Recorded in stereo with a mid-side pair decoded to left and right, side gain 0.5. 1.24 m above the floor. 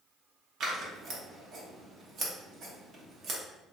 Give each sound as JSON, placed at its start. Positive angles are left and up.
{"t": 0.6, "sound": "scissors", "azimuth_deg": -65, "distance_m": 0.9}